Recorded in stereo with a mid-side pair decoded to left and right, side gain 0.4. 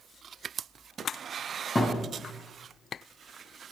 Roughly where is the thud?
Ahead left.